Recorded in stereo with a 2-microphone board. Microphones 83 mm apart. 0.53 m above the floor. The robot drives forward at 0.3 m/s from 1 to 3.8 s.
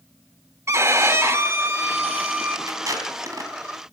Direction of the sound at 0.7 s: 35° right (ahead or behind).